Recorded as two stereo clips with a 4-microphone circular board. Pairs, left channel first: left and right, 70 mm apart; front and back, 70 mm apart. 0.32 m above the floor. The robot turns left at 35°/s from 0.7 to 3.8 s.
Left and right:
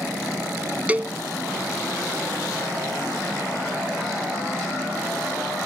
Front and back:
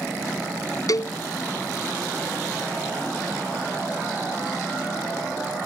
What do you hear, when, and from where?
0.9 s a cowbell: 20° right; by 1.2 s 30° right